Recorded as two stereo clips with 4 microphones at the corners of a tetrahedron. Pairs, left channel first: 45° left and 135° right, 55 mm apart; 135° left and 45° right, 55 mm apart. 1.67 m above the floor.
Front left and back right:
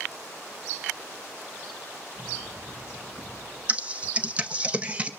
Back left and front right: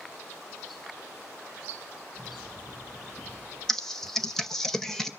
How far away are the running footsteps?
About 8.5 m.